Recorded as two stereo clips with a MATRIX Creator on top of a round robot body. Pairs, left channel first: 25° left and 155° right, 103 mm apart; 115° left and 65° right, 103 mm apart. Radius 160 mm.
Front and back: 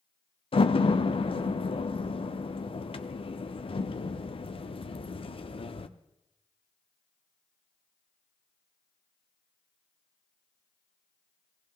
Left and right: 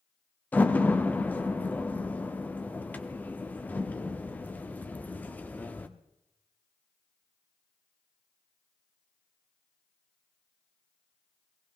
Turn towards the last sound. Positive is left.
turn(degrees=40)